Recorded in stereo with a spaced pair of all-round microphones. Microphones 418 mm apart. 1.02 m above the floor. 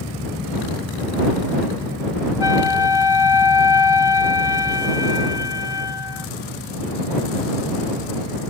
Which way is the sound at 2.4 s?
70° left (ahead or behind).